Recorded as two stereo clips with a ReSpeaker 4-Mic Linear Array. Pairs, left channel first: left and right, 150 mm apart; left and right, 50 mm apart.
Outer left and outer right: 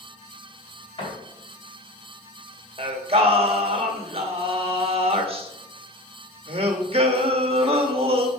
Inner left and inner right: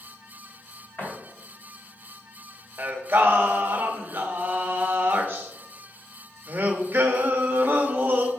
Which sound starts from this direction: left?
A door slam, at 1.0 s.